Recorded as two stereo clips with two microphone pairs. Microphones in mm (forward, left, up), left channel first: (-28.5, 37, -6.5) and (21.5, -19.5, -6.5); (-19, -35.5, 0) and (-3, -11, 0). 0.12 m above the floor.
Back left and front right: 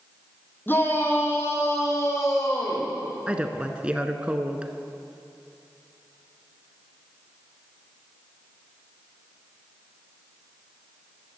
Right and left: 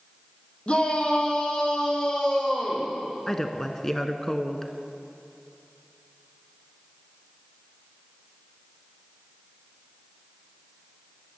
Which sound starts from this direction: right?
A woman speaking, at 3.3 s.